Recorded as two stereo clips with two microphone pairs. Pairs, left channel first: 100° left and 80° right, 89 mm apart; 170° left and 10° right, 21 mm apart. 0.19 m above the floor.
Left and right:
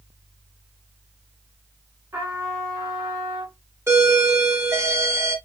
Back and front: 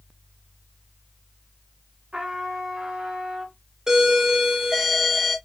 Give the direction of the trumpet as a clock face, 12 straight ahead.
1 o'clock.